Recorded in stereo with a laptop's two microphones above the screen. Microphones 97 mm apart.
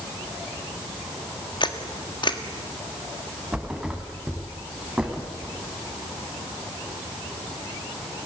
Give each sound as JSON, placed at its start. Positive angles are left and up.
{"t": 1.6, "sound": "a camera shutter", "side_deg": 50, "distance_m": 1.5}
{"t": 3.5, "sound": "a thud", "side_deg": -10, "distance_m": 3.5}